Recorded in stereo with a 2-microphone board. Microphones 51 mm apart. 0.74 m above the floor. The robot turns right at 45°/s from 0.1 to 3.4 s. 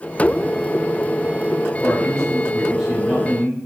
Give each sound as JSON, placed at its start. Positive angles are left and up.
{"t": 1.8, "sound": "a man speaking", "azimuth_deg": 145, "distance_m": 3.5}